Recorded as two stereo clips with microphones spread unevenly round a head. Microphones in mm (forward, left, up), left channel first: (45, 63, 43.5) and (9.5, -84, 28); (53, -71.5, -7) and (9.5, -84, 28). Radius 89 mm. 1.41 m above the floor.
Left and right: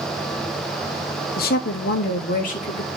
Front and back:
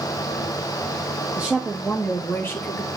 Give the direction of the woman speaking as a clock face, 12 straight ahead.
8 o'clock.